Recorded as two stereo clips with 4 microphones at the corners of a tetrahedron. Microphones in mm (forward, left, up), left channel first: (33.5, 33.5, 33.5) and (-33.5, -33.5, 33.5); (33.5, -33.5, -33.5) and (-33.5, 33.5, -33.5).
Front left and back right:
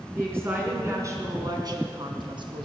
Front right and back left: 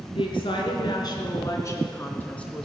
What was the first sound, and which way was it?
A woman speaking, 70° right.